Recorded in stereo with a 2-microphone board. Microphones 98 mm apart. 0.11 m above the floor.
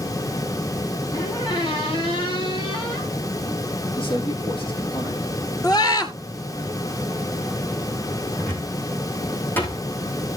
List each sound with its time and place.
1.1 s a squeak: 40° left (ahead or behind), 5 m
4.0 s a man speaking: 60° left (ahead or behind), 4.5 m
5.6 s a scream: 40° left (ahead or behind), 2.0 m
8.4 s a cupboard door: 20° left (ahead or behind), 3.5 m